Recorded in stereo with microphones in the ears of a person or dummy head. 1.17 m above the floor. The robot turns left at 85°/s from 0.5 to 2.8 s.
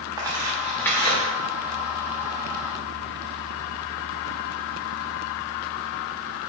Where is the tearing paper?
20° right (ahead or behind), 0.7 m; by 1.2 s 25° left (ahead or behind), 0.7 m.